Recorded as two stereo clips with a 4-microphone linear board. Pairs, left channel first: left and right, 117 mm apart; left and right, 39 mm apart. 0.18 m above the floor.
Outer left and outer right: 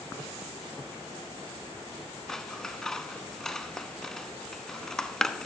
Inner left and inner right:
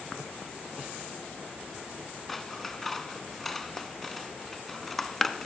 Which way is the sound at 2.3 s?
5° left (ahead or behind).